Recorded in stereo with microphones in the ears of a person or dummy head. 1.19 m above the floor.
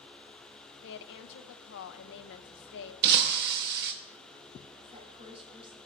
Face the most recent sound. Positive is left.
turn(degrees=-30)  # may be behind; listen again after turning